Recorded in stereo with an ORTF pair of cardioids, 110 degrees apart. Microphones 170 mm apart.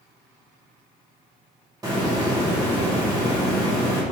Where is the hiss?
20° right, 1.0 m.